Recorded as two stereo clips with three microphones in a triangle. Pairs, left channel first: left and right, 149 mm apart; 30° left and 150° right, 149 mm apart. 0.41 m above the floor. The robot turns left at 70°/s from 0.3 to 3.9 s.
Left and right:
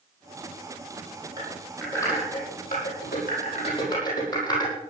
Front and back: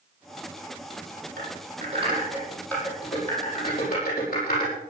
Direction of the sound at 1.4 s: 155° right.